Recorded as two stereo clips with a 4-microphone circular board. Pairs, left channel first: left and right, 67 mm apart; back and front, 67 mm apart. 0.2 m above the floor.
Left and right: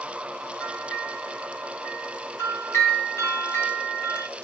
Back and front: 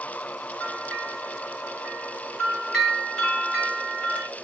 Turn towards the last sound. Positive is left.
turn(degrees=90)